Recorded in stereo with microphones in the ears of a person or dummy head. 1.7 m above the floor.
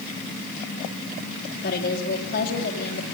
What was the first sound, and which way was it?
A woman speaking, 50° left (ahead or behind).